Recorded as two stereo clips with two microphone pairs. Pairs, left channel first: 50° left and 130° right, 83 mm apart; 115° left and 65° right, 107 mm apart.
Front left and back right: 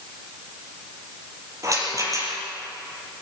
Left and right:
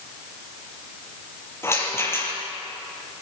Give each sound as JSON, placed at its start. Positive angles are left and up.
{"t": 1.6, "sound": "a rattle", "azimuth_deg": -175, "distance_m": 5.5}